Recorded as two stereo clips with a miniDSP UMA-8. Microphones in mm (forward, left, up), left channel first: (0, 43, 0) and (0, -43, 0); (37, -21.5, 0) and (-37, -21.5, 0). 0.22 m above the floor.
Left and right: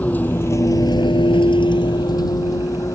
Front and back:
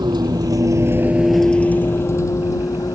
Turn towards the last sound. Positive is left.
turn(degrees=40)